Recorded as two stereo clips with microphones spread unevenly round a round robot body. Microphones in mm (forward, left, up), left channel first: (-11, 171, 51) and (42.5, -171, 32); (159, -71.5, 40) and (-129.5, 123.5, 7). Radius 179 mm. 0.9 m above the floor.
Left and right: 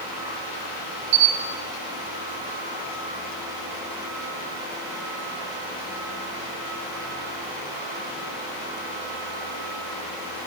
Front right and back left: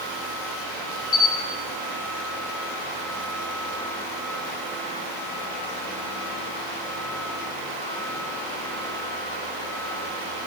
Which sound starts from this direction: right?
A camera shutter, at 1.1 s.